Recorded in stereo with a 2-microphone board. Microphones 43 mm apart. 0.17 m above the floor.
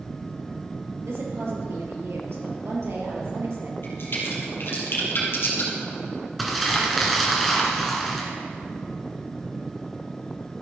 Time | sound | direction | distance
1.1 | a woman speaking | 70° right (ahead or behind) | 3.5 m
3.8 | a crack | 60° left (ahead or behind) | 4 m
6.4 | crumpling | 5° left (ahead or behind) | 2.5 m